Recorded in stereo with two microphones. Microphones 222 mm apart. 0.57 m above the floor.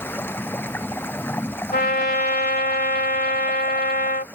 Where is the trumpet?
45° left (ahead or behind).